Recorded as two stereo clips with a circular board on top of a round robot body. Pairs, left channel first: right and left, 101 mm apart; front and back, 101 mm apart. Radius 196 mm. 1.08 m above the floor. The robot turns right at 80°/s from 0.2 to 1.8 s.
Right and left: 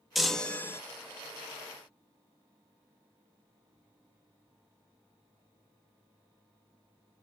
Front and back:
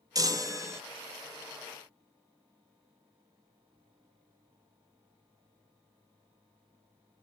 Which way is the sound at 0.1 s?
175° left.